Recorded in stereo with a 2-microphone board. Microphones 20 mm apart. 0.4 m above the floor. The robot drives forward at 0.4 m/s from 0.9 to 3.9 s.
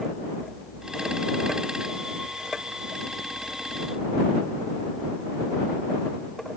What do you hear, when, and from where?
Only background noise.